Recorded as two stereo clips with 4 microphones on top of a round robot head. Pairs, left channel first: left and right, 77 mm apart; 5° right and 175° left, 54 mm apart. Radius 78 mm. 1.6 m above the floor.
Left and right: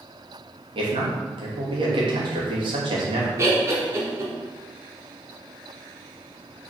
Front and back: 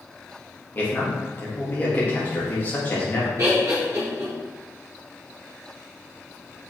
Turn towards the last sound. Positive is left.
turn(degrees=-145)